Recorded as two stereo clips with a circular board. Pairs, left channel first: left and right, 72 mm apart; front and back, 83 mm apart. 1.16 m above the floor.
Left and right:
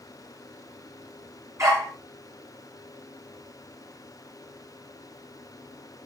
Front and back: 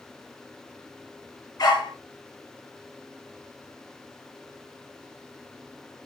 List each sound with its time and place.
1.6 s a dog barking: 45° right, 6 m